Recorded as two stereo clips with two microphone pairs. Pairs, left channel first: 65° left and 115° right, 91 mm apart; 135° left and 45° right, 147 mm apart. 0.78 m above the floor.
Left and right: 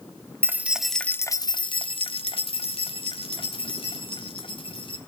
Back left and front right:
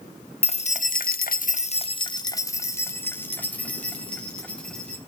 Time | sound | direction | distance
0.4 | keys jangling | straight behind | 0.8 m